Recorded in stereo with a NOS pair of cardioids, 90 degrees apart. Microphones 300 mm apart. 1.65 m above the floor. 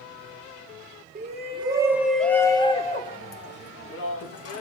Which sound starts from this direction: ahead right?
A shout, at 1.1 s.